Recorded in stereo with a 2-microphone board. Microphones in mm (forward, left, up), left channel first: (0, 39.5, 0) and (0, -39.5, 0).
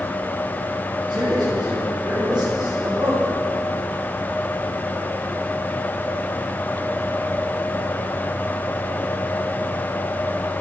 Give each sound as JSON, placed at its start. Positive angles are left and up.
{"t": 1.1, "sound": "a man speaking", "side_deg": -70, "distance_m": 5.0}